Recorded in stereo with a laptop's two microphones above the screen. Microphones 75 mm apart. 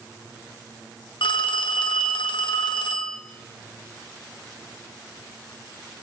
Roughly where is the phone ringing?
Left.